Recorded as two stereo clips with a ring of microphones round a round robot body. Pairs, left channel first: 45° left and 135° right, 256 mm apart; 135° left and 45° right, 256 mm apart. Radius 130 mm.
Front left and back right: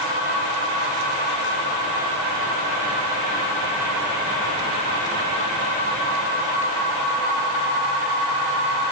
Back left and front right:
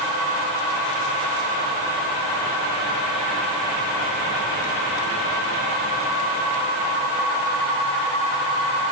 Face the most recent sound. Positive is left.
No sound to turn to.